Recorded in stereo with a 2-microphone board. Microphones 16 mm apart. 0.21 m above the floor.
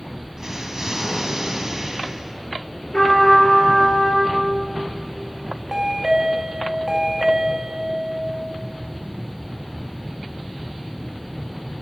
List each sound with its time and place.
0.4 s an explosion: 40° right (ahead or behind), 0.7 m
2.9 s a trumpet: 70° left (ahead or behind), 3.5 m
5.7 s a chime: 40° right (ahead or behind), 0.8 m